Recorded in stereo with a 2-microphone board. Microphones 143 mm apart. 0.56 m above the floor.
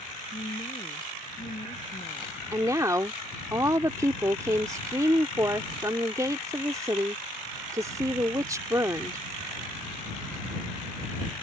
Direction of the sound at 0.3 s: 55° left (ahead or behind).